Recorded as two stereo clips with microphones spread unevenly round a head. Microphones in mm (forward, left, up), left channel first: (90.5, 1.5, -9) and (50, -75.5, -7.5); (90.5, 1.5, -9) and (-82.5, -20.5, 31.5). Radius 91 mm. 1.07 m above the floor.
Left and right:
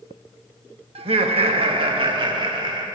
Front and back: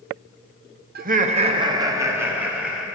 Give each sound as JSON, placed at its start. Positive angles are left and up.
{"t": 0.9, "sound": "laughter", "azimuth_deg": -135, "distance_m": 0.9}